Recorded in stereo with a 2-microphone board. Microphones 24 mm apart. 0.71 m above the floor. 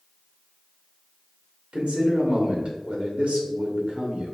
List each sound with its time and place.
1.7 s a man speaking: 60° right (ahead or behind), 1.4 m